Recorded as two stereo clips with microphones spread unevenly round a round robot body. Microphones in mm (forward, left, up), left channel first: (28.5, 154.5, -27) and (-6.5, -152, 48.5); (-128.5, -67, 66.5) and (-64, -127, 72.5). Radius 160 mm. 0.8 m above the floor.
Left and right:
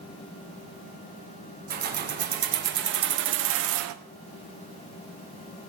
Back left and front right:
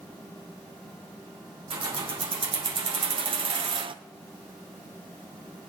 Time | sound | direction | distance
1.7 | keys jangling | 35° right | 2 m